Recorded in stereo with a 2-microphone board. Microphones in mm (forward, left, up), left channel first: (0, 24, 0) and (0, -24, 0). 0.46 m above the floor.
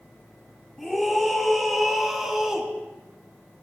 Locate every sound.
0.8 s a scream: centre (ahead or behind), 5.5 m; by 2.7 s 10° right (ahead or behind), 4.5 m